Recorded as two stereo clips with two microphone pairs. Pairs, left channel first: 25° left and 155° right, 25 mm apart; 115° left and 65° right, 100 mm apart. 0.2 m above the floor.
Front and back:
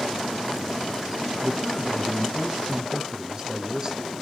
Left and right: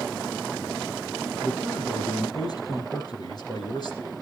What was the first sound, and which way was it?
A man speaking, 145° left.